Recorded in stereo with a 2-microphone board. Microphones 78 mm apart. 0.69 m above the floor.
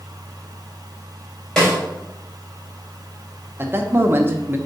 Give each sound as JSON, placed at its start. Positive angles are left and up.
{"t": 1.6, "sound": "a snare drum", "side_deg": 5, "distance_m": 3.5}
{"t": 3.6, "sound": "a man speaking", "side_deg": -30, "distance_m": 0.9}